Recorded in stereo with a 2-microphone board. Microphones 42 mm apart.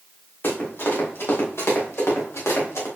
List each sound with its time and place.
0.4 s running footsteps: 50° left (ahead or behind), 4 m; by 2.9 s 75° left (ahead or behind), 4 m